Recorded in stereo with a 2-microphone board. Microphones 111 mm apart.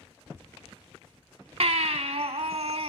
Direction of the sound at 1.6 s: 65° right (ahead or behind).